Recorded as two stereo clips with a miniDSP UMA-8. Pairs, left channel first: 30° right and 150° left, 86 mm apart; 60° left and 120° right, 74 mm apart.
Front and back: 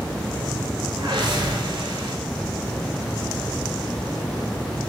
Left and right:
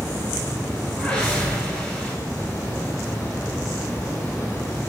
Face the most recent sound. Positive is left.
turn(degrees=140)